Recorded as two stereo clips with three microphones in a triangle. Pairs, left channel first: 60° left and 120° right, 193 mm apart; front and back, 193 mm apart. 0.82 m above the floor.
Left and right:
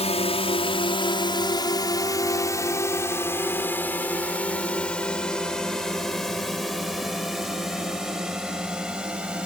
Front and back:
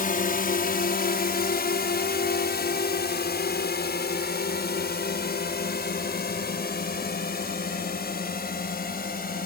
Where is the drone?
15° left; by 9.5 s 35° right.